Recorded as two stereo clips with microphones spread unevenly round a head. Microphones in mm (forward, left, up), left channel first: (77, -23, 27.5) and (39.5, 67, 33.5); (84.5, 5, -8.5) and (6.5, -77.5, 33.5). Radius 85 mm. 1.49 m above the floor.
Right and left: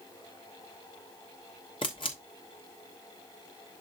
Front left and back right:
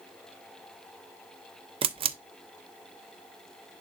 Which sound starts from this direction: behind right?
A camera shutter, at 1.8 s.